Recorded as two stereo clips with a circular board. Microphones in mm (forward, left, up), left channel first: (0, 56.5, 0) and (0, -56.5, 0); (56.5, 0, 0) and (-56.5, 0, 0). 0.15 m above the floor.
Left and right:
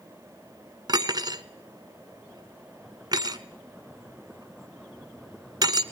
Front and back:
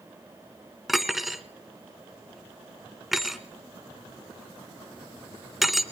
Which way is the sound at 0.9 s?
95° right.